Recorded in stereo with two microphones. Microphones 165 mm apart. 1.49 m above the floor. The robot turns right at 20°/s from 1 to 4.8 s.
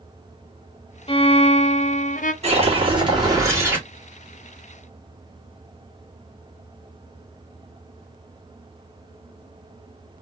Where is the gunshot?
I don't hear a gunshot.